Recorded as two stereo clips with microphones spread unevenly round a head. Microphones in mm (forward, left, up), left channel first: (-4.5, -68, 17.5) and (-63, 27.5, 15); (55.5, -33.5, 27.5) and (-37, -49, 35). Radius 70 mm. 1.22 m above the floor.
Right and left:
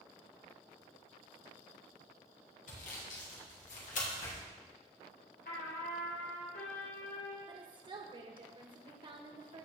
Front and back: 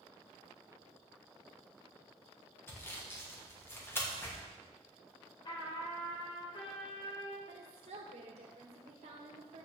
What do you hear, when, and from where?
2.7 s sawing: 55° right, 2 m
5.5 s a trumpet: 30° right, 2.5 m
7.5 s a woman speaking: 165° left, 1.6 m